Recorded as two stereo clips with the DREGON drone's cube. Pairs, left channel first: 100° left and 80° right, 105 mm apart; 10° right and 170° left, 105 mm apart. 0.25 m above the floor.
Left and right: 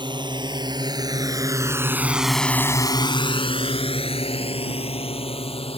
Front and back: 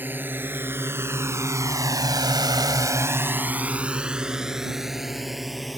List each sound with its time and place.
0.0 s a drone: 120° right; by 5.8 s 80° left